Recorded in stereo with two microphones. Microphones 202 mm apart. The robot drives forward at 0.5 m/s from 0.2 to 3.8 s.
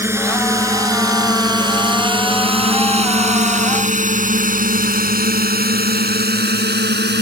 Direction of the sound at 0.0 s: 10° right (ahead or behind).